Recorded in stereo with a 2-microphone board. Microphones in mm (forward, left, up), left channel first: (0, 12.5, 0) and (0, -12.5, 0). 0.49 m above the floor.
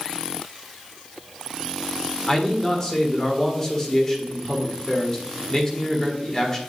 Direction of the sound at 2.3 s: 20° left (ahead or behind).